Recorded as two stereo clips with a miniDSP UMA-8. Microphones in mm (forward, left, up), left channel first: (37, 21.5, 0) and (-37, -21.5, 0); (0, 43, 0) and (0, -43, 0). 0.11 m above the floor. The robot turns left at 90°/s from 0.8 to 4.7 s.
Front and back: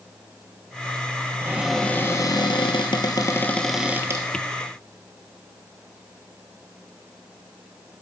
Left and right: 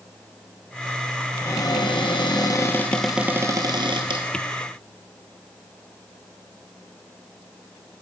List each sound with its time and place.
1.4 s a cupboard door: 150° left, 1.0 m; by 4.2 s 110° right, 1.0 m